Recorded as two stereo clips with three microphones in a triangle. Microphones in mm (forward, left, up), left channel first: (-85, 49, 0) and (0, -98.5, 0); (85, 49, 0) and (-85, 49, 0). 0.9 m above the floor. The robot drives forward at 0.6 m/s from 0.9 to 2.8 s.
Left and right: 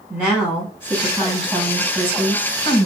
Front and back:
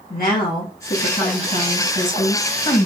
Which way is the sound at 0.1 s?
25° left.